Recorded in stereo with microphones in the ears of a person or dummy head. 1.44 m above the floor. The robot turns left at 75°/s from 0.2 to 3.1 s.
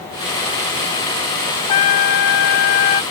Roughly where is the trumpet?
Behind left.